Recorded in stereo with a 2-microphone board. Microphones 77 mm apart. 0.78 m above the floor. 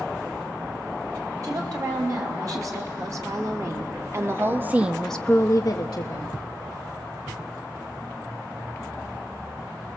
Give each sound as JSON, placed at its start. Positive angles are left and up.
{"t": 1.4, "sound": "a woman speaking", "side_deg": -50, "distance_m": 4.5}